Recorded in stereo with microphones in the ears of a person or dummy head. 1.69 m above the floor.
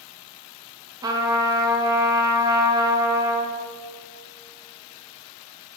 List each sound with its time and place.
1.0 s a trumpet: 25° right (ahead or behind), 1.6 m